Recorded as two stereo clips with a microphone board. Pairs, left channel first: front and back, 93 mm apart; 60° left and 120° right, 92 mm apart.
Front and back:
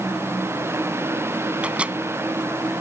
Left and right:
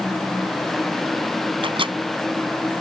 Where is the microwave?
105° right.